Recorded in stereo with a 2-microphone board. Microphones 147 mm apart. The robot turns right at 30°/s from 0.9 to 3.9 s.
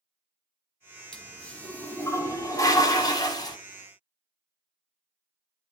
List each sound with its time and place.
1.1 s a toilet flushing: 5° left (ahead or behind), 1.3 m; by 3.6 s 25° left (ahead or behind), 1.3 m